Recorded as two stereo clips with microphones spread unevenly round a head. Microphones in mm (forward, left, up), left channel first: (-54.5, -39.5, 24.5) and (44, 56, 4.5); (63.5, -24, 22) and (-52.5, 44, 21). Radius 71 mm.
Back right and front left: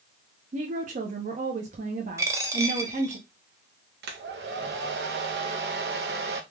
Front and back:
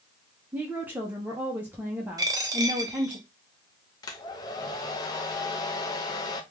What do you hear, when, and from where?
0.5 s a woman speaking: 75° left, 0.6 m
2.2 s a dropped coin: 110° left, 0.5 m
4.0 s a hair dryer: 30° left, 0.6 m